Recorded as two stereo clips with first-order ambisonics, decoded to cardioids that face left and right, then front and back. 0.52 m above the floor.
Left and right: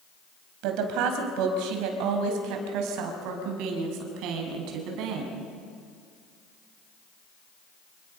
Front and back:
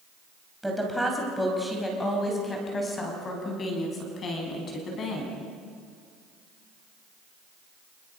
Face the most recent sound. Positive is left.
turn(degrees=-55)